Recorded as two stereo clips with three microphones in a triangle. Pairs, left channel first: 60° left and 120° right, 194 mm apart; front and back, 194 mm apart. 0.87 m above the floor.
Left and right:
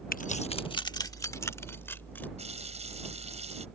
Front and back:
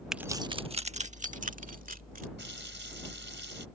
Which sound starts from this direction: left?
Keys jangling, at 0.1 s.